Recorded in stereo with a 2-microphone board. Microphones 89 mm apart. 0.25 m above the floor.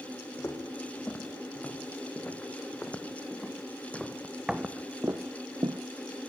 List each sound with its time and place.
0.4 s footsteps: 25° left (ahead or behind), 3.5 m; by 5.8 s 60° right (ahead or behind), 0.7 m